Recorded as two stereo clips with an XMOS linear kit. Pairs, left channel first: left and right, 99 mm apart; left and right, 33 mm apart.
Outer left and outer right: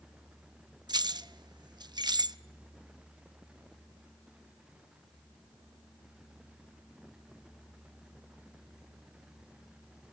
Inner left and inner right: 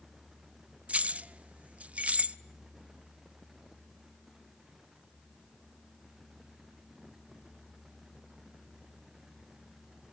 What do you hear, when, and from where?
0.9 s keys jangling: 45° right (ahead or behind), 0.6 m